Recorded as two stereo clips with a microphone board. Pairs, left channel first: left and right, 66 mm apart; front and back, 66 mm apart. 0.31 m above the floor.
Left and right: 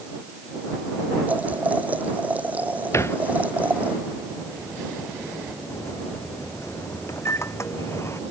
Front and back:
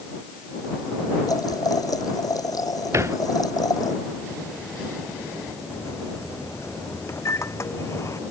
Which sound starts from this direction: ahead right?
Boiling, at 1.3 s.